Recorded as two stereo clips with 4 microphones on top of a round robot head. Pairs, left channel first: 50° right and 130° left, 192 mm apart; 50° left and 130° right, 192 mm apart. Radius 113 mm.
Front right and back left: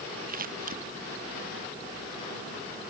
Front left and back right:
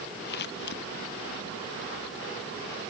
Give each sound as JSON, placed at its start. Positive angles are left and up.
{"t": 0.3, "sound": "scissors", "azimuth_deg": 85}